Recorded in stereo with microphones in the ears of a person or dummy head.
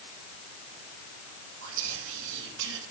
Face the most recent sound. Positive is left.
turn(degrees=-70)  # may be behind; listen again after turning